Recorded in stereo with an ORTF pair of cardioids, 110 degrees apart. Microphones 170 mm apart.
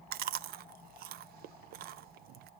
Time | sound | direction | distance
0.1 | chewing | 70° right | 0.5 m